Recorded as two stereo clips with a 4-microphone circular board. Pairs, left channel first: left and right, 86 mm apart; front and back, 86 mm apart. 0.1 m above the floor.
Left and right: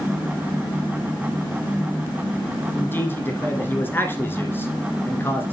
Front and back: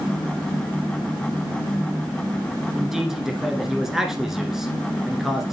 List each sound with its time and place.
2.8 s a man speaking: 100° left, 1.5 m